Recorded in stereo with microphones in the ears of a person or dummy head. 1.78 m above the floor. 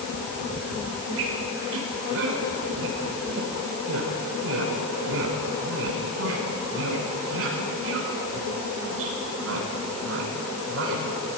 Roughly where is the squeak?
Right.